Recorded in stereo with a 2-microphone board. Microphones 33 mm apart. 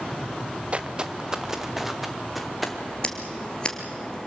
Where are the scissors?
25° left (ahead or behind), 2.5 m.